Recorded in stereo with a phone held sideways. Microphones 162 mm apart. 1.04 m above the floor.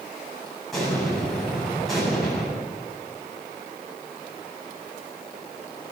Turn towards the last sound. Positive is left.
turn(degrees=0)  # may be behind; listen again after turning